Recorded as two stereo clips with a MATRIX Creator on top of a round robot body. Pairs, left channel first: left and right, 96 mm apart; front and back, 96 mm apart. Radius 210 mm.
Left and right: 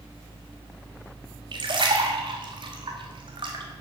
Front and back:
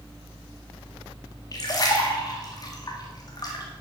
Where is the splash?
50° right, 1.5 m.